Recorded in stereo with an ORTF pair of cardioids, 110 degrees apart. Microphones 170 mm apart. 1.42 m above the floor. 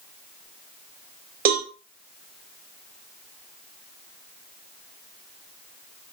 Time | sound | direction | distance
1.4 | a cowbell | 55° right | 1.4 m